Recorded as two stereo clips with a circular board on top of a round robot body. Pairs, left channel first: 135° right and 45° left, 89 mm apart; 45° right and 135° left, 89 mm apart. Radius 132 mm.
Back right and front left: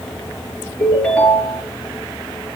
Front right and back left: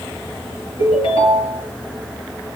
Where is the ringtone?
55° right, 6 m.